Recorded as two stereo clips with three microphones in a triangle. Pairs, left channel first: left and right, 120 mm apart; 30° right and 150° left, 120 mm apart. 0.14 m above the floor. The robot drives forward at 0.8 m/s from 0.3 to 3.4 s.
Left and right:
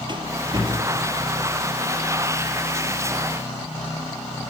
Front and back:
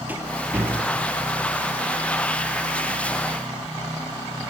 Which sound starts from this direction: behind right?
A rattle, at 0.1 s.